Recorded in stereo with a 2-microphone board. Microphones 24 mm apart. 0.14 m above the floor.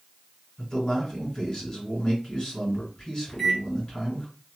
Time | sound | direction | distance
0.6 | a man speaking | 30° left (ahead or behind) | 1.9 m
3.3 | a microwave | 10° left (ahead or behind) | 0.9 m